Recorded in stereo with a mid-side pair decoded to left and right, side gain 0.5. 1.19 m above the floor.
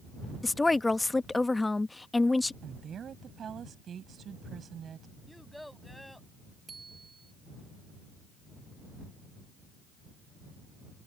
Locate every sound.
0.4 s a woman speaking: 15° left
2.6 s a woman speaking: 50° right
5.3 s a child speaking: 5° left
6.7 s a bicycle bell: 30° right